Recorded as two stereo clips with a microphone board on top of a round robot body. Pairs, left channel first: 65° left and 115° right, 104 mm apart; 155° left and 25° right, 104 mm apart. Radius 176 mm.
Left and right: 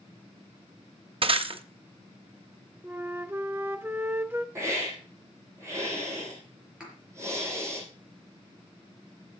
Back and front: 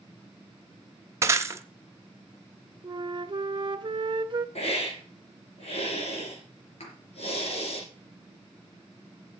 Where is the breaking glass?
85° right, 1.1 m.